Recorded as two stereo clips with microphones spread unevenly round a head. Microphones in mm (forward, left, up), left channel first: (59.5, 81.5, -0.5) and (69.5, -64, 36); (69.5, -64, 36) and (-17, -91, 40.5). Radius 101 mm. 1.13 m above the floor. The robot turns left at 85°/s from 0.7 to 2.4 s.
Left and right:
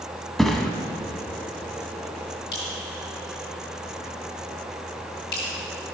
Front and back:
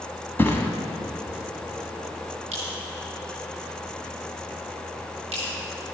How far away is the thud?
About 1.1 m.